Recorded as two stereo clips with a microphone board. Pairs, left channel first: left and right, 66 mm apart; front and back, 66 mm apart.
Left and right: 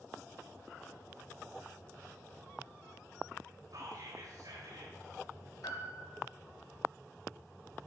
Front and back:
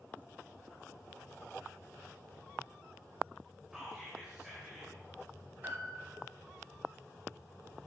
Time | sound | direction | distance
3.7 | whispering | 95° right | 2 m
5.6 | a piano | 120° left | 3 m